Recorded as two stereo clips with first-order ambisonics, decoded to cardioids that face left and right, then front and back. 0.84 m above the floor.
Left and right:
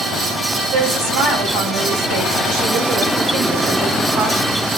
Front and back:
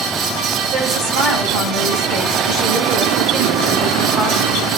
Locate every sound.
0.7 s a woman speaking: 125° right, 5.5 m